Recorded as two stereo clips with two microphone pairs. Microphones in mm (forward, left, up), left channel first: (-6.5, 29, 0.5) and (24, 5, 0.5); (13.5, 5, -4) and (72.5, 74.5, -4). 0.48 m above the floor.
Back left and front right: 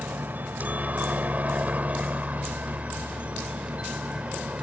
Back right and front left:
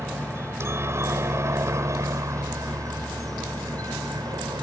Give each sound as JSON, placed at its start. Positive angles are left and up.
{"t": 0.0, "sound": "a helicopter", "azimuth_deg": -5}